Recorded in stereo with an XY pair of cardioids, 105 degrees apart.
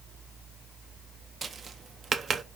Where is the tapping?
40° right, 0.5 m.